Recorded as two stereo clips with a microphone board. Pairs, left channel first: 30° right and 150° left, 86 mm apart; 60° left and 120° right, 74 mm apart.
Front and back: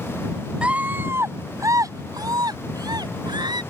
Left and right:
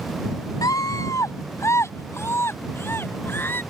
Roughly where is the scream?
Left.